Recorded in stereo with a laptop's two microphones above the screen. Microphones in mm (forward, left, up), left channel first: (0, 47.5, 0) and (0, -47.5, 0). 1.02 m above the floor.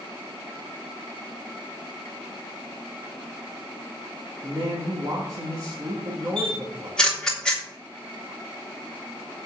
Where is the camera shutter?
5° left (ahead or behind), 2.5 m.